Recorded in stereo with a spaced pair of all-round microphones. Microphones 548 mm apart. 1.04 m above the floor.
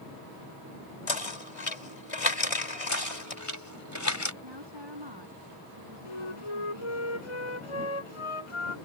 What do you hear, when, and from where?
1.1 s knocking: 80° left
2.9 s knocking: 30° left (ahead or behind)
4.4 s a woman speaking: 50° right (ahead or behind)
6.0 s a flute: 70° left (ahead or behind)